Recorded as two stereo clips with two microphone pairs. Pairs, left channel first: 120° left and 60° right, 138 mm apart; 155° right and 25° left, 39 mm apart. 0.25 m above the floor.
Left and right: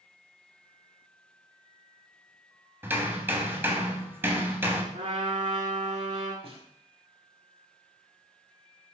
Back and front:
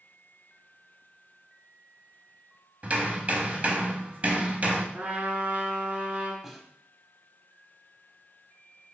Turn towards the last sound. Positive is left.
turn(degrees=-55)